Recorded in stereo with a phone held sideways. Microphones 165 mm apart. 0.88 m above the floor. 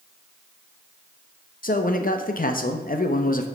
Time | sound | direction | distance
1.6 | a man speaking | 60° left (ahead or behind) | 0.6 m